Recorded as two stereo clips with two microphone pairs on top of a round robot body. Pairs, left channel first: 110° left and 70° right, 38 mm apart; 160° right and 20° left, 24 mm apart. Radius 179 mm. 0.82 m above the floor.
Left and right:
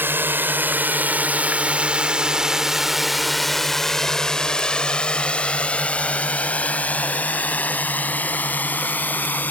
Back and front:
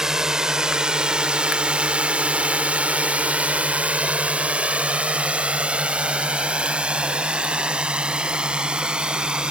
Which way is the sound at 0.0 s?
45° right.